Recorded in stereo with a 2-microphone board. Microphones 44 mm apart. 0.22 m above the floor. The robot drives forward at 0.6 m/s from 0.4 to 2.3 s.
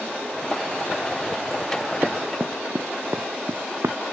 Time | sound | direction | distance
2.0 | running footsteps | 40° right (ahead or behind) | ?